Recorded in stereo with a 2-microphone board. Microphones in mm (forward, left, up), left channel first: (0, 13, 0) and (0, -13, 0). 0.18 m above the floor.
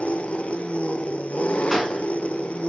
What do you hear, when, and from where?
0.0 s an engine running: 60° left (ahead or behind), 1.2 m
1.7 s a gunshot: centre (ahead or behind), 3 m